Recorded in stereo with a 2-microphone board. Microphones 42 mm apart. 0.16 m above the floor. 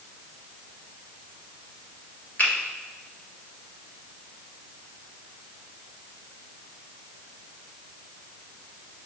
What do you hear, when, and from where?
2.4 s a finger snap: 45° left (ahead or behind), 1.6 m